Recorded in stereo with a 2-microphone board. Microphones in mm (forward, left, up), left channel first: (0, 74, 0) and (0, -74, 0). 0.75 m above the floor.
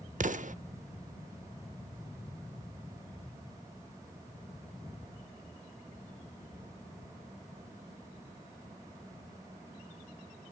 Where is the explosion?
60° right (ahead or behind), 0.6 m.